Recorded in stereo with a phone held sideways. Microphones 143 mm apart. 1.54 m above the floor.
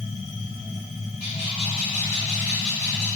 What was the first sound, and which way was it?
A machine running, 45° left (ahead or behind).